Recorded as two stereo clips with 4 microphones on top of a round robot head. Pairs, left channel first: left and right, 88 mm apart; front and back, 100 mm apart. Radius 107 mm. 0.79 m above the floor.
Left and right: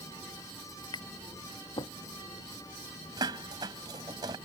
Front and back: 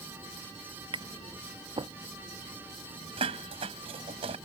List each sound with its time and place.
0.9 s tapping: 140° left
3.2 s dishes clattering: 140° right